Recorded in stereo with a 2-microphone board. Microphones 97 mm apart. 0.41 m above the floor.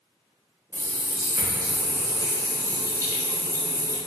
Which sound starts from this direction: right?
A running tap, at 0.7 s.